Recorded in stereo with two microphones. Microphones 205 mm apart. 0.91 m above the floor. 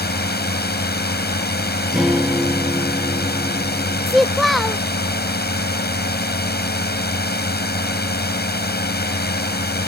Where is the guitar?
Centre (ahead or behind).